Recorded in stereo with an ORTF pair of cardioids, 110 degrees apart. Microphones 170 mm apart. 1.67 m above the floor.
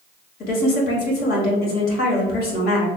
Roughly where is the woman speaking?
Ahead left.